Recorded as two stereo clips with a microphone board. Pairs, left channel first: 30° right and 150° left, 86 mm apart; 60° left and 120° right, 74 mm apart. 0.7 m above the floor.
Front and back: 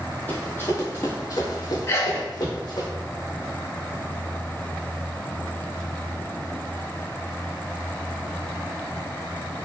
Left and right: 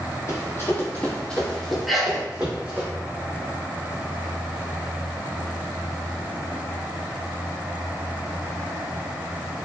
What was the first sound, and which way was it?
Running footsteps, 35° left.